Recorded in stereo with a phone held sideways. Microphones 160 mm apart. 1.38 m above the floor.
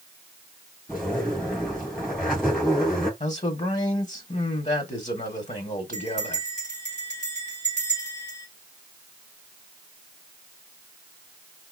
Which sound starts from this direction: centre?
A zipper, at 0.9 s.